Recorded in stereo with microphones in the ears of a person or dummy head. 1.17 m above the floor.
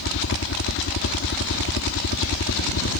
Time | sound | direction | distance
0.0 | a helicopter | 60° left (ahead or behind) | ?